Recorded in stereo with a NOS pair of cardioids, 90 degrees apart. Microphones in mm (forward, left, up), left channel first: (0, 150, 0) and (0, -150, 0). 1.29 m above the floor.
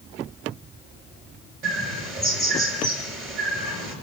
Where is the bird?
45° right, 7 m.